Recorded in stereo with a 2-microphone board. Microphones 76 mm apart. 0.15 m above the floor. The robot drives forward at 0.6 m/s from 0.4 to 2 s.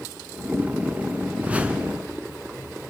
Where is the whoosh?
20° right (ahead or behind), 1.2 m; by 2.0 s 15° right (ahead or behind), 1.4 m.